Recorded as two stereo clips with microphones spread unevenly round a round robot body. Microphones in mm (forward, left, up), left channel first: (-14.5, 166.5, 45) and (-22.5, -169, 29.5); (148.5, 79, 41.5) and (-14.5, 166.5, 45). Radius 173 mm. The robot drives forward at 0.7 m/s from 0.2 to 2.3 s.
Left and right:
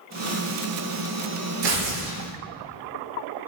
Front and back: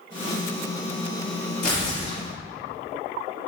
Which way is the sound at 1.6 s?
105° right.